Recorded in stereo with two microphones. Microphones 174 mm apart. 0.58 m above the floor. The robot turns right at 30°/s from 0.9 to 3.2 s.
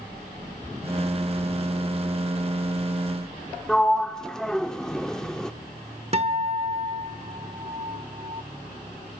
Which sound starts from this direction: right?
A guitar, at 6.1 s.